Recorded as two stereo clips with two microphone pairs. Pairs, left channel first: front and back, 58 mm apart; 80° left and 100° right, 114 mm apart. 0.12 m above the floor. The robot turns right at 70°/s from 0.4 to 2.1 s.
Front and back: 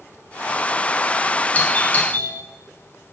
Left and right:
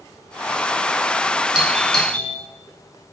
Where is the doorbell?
25° right, 1.6 m; by 2.3 s 15° left, 1.6 m.